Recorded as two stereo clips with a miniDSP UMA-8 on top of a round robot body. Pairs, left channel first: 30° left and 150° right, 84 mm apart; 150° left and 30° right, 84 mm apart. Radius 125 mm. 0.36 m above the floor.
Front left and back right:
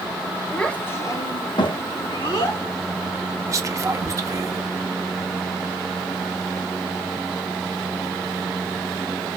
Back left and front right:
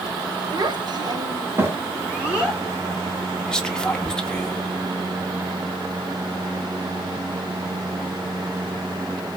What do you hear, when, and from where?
0.5 s a child speaking: 50° right, 1.0 m; by 2.6 s 55° left, 1.8 m
3.5 s whispering: 135° right, 0.9 m